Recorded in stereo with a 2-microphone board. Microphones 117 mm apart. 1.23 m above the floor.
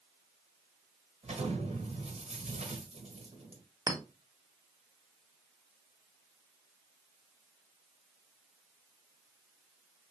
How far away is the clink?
About 0.8 m.